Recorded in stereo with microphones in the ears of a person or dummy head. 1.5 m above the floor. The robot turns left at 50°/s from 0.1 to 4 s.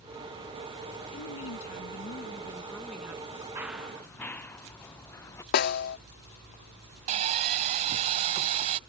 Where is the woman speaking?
90° left; by 3.5 s 25° right.